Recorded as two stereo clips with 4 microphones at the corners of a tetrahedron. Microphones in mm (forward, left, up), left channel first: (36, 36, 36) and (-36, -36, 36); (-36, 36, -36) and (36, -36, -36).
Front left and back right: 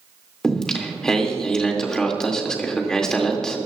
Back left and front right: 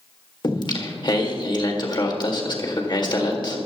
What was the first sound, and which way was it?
Singing, 125° left.